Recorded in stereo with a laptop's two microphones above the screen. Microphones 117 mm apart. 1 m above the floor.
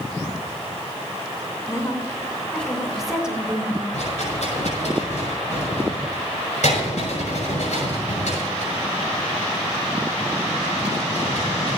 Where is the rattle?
70° left (ahead or behind), 6 m.